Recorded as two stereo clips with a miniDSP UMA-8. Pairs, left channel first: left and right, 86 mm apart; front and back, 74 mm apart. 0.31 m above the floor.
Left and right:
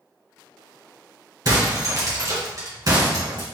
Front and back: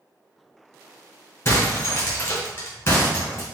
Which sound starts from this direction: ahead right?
Breaking glass, at 1.4 s.